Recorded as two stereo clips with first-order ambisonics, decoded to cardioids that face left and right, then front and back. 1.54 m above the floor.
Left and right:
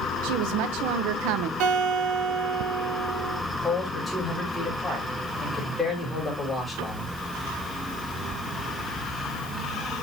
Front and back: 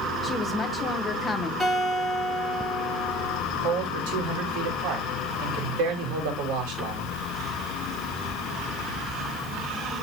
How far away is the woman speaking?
About 1.3 m.